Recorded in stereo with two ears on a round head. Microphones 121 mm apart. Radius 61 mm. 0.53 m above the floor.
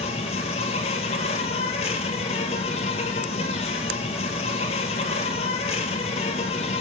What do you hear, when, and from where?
0.0 s an insect: 50° left (ahead or behind), 1.3 m